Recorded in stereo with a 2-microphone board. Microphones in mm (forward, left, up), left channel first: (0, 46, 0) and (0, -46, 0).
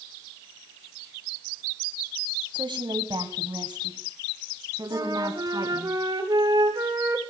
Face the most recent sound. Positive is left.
turn(degrees=-50)  # may be behind; listen again after turning